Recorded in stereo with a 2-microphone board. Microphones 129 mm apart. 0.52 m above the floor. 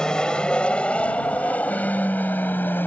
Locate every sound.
0.0 s an aircraft: 5° left (ahead or behind); by 2.9 s 15° left (ahead or behind)